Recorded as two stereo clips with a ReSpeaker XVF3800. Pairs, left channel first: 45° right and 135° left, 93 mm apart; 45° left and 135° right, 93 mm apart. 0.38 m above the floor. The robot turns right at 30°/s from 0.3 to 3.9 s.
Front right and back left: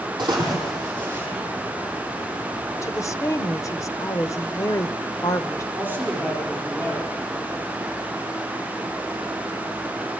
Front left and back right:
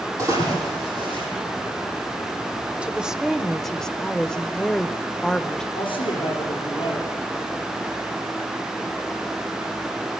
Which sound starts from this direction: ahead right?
A woman speaking, at 2.8 s.